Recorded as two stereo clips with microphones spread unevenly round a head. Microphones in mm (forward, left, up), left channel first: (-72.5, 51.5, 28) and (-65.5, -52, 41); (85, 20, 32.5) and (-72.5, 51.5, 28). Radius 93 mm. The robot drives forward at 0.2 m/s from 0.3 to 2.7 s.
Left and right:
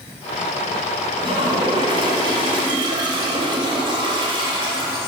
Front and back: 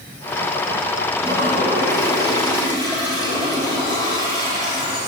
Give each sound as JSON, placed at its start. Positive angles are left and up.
{"t": 1.2, "sound": "a toilet flushing", "azimuth_deg": -120, "distance_m": 3.5}